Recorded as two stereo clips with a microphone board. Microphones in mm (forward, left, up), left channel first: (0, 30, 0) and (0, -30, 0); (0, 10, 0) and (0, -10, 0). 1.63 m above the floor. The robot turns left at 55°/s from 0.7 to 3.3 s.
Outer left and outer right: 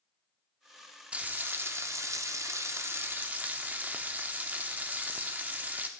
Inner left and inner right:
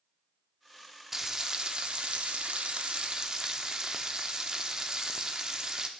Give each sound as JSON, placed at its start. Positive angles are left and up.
{"t": 1.1, "sound": "frying", "azimuth_deg": -25, "distance_m": 0.6}